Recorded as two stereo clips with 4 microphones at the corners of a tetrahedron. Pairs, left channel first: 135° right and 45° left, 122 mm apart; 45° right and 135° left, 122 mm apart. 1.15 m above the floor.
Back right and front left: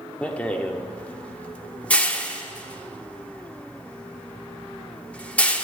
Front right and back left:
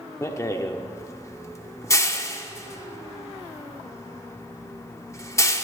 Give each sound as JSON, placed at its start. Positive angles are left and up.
{"t": 0.2, "sound": "a rattle", "azimuth_deg": -70, "distance_m": 0.7}